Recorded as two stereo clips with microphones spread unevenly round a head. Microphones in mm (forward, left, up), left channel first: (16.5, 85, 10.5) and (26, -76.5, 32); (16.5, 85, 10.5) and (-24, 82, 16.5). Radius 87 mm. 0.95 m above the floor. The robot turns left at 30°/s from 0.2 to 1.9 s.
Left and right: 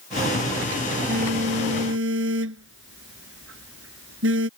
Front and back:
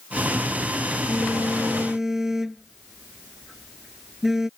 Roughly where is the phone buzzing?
Ahead right.